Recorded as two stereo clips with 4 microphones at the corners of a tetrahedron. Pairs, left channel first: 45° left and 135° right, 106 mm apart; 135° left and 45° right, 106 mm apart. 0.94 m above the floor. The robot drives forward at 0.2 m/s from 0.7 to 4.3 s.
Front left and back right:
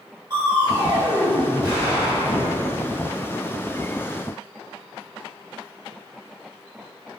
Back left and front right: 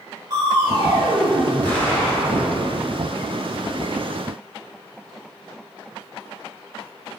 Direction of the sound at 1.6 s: 150° right.